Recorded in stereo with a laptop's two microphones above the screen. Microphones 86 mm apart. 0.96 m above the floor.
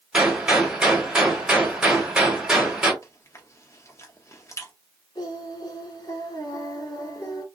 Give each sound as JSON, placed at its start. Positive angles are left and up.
{"t": 0.1, "sound": "a gunshot", "side_deg": -10, "distance_m": 1.7}
{"t": 3.0, "sound": "chewing", "side_deg": 35, "distance_m": 0.6}
{"t": 5.2, "sound": "singing", "side_deg": 50, "distance_m": 1.9}